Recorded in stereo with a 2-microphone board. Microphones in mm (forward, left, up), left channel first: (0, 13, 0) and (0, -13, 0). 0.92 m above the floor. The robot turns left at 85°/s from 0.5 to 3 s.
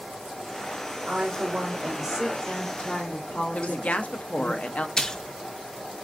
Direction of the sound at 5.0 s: 25° left (ahead or behind).